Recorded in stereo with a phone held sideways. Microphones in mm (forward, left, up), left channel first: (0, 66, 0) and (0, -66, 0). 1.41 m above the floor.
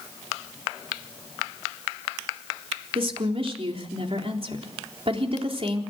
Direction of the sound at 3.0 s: 50° right (ahead or behind).